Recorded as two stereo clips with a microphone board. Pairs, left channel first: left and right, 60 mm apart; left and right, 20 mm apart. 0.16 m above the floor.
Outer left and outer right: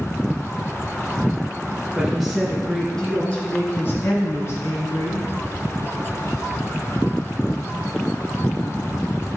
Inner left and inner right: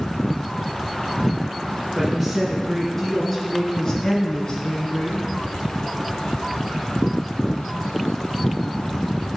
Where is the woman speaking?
5° right (ahead or behind), 3.5 m; by 5.2 s 60° left (ahead or behind), 3.5 m.